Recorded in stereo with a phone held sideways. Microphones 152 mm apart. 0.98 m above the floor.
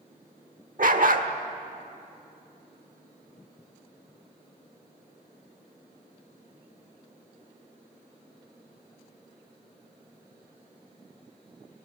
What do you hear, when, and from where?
0.8 s a dog barking: 60° right (ahead or behind), 1.2 m